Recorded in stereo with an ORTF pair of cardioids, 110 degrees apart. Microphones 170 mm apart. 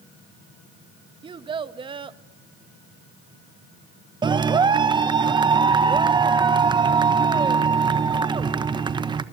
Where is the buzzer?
I don't hear a buzzer.